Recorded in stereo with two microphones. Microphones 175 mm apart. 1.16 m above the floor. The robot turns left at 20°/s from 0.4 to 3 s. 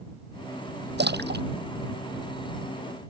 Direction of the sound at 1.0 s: 80° right.